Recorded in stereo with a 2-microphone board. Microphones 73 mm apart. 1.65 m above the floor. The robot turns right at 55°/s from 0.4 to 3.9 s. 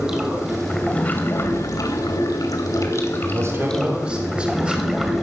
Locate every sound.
0.0 s running water: 10° right, 2.5 m; by 5.2 s straight behind, 2.5 m
3.2 s a man speaking: 55° right, 4 m; by 4.8 s 15° right, 4 m